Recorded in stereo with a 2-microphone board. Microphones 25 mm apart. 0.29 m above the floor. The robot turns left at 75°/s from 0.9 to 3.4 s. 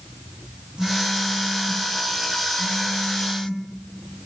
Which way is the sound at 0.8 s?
80° right.